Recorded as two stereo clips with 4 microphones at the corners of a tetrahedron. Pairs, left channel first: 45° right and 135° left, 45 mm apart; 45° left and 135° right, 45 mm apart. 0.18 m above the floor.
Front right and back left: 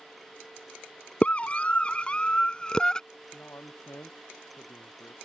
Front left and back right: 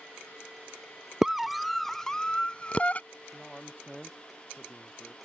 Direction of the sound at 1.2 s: 60° right.